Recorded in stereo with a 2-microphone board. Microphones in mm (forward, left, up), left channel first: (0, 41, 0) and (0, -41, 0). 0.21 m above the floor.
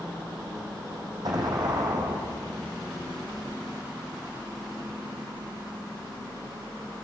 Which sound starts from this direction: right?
An explosion, at 1.2 s.